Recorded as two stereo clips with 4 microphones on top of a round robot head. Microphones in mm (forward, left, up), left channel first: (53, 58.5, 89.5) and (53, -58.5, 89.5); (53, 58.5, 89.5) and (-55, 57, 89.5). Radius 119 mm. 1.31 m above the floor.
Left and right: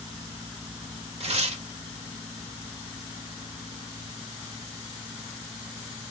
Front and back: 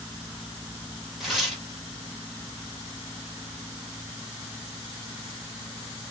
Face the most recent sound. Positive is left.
turn(degrees=-90)